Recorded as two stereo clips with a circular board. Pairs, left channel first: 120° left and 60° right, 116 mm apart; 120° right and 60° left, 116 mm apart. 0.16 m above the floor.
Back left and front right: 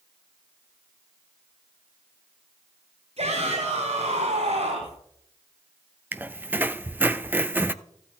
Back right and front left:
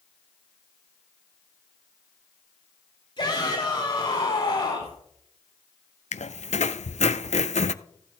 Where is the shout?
75° right, 4.5 m.